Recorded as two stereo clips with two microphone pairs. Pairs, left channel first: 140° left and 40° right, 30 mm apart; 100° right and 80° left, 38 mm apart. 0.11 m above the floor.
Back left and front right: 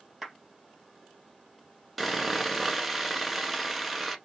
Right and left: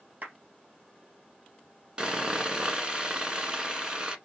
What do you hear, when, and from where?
0.2 s a clap: 45° left, 2.5 m
2.0 s sawing: 50° left, 1.1 m